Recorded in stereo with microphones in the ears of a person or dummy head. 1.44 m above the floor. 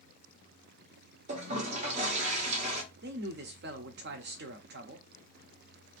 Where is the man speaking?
50° right (ahead or behind), 0.7 m.